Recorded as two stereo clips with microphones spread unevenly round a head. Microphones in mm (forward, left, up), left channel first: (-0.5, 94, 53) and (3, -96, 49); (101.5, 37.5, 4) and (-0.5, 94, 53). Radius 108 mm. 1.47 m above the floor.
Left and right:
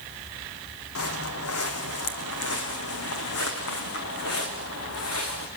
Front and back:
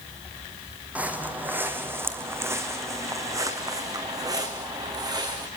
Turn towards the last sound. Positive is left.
turn(degrees=105)